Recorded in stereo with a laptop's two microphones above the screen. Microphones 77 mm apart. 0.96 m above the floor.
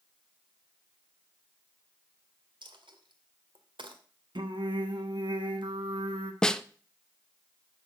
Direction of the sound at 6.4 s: 10° left (ahead or behind).